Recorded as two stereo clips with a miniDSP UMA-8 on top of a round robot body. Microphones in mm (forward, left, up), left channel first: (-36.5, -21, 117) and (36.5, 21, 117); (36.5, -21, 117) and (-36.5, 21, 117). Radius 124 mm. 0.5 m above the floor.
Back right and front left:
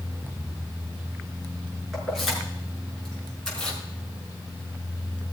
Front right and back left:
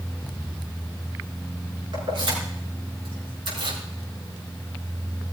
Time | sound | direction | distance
1.9 | keys jangling | 120° left | 5.5 m